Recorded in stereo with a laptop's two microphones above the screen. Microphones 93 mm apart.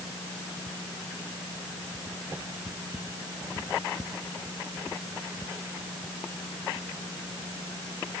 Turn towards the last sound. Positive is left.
No sound to turn to.